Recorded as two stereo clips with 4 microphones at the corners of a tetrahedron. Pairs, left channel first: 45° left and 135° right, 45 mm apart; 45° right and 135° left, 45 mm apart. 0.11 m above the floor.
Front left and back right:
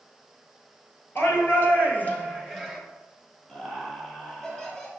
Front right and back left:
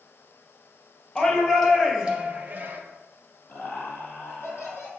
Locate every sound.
1.1 s a shout: 25° left, 2 m; by 2.8 s 130° left, 1.6 m
3.5 s laughter: 20° right, 2.5 m